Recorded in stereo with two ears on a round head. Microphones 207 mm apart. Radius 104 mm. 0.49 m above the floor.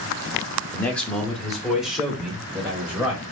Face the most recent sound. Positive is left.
turn(degrees=-5)  # may be behind; listen again after turning